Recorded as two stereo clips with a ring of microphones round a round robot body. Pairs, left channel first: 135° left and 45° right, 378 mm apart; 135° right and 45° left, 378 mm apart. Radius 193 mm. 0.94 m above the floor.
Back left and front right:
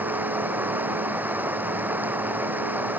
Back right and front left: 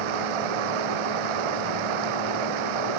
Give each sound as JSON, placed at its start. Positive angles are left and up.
{"t": 0.0, "sound": "running water", "azimuth_deg": 40}